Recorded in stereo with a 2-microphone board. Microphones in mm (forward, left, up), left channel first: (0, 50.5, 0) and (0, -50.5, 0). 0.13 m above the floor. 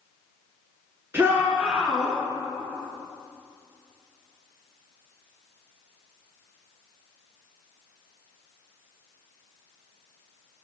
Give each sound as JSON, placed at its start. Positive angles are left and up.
{"t": 1.1, "sound": "a shout", "side_deg": -25, "distance_m": 1.8}